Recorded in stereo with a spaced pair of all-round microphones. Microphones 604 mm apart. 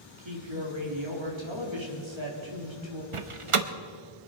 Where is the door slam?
55° right (ahead or behind), 0.9 m.